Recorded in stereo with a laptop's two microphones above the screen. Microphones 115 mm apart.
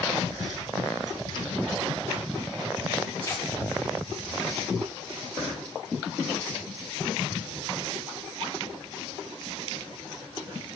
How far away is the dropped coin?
About 3.5 m.